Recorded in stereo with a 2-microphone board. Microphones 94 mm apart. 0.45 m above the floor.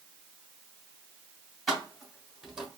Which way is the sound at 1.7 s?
Centre (ahead or behind).